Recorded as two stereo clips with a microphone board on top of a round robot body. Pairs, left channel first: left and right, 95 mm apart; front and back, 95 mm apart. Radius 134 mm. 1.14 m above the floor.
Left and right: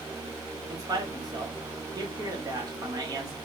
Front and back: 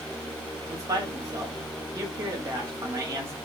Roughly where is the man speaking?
Behind right.